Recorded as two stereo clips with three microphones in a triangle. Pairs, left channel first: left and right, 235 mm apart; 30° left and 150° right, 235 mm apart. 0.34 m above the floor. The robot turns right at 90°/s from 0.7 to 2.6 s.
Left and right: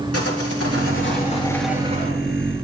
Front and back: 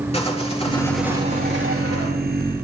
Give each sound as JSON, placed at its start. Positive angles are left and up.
{"t": 0.1, "sound": "sawing", "azimuth_deg": 95, "distance_m": 3.5}